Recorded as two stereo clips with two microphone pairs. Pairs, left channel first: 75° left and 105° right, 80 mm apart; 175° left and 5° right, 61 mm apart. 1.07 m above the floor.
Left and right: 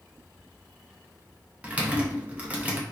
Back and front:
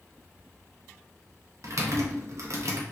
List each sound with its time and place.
1.6 s typing on a keyboard: 35° right, 0.7 m